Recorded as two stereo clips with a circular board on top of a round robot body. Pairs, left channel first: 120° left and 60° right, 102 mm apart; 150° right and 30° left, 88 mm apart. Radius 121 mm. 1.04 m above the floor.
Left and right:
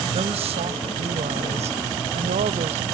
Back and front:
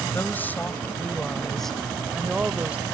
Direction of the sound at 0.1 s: 85° right.